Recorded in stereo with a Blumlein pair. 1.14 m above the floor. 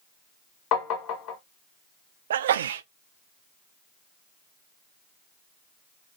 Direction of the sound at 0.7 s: 35° left.